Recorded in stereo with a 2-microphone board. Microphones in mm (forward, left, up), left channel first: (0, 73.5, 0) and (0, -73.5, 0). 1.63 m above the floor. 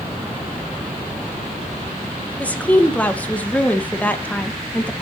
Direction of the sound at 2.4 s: 10° left (ahead or behind).